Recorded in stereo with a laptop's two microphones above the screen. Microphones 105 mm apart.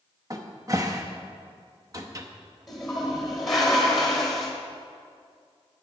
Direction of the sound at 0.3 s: 35° right (ahead or behind).